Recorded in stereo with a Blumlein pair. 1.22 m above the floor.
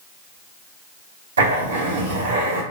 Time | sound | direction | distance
1.4 | writing | 65° right | 1.0 m